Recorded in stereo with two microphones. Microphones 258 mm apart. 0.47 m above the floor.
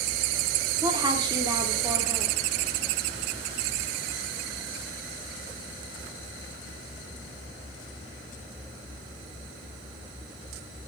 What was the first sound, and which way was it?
A woman speaking, 15° right (ahead or behind).